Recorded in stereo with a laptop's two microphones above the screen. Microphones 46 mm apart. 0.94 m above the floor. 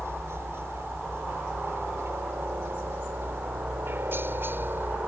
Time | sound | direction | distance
0.0 | a helicopter | 65° right (ahead or behind) | ?